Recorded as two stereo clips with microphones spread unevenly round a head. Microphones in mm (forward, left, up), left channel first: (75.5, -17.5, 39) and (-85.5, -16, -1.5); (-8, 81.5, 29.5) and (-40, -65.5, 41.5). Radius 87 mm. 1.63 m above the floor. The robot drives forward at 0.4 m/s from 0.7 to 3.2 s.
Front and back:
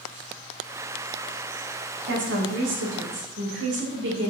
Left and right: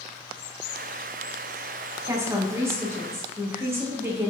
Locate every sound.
2.0 s a woman speaking: 175° right, 2 m